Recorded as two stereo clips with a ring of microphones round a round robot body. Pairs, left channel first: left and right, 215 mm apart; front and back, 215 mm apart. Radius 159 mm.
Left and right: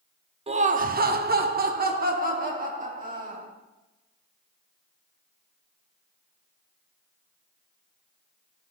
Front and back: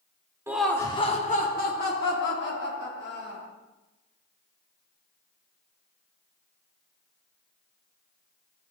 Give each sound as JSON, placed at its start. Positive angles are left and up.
{"t": 0.5, "sound": "laughter", "azimuth_deg": -115, "distance_m": 0.7}